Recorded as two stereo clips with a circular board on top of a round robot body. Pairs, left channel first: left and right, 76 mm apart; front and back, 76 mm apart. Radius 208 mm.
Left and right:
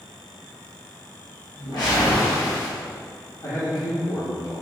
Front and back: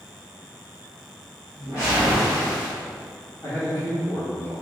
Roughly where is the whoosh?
Ahead left.